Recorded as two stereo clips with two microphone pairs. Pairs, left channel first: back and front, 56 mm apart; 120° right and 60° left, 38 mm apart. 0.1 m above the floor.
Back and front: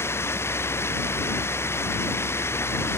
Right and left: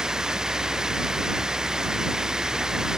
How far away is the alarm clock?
No alarm clock in this recording.